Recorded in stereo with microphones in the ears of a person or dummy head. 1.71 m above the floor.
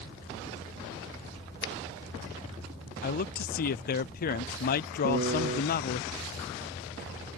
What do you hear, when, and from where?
1.6 s a finger snap: 70° left (ahead or behind)
3.0 s a man speaking: 50° left (ahead or behind)
5.0 s a piano: 45° right (ahead or behind)